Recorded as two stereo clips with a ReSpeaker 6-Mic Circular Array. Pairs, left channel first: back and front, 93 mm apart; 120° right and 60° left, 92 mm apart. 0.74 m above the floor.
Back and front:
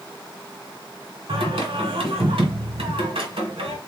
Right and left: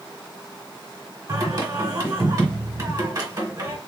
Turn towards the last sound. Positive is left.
turn(degrees=10)